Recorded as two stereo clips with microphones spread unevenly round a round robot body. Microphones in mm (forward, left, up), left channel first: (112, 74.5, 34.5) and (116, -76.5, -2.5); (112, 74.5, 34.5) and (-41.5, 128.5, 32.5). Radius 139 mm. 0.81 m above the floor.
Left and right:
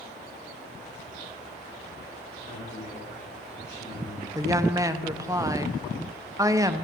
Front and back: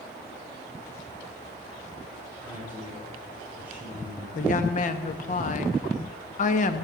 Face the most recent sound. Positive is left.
turn(degrees=-40)